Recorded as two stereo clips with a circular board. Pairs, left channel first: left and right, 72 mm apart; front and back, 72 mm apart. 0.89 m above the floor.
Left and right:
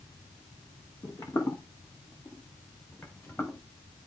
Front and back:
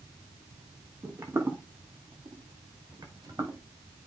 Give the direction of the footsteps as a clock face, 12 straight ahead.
8 o'clock.